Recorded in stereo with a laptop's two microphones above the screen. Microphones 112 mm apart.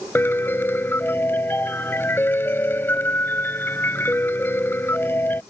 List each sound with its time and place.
0.1 s a piano: 20° left (ahead or behind)